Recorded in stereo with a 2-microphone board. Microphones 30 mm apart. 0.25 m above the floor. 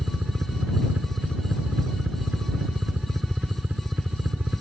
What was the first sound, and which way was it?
A helicopter, 55° right (ahead or behind).